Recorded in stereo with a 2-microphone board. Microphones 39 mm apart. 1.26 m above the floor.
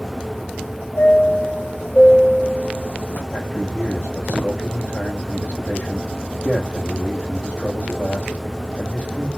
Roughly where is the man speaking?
Left.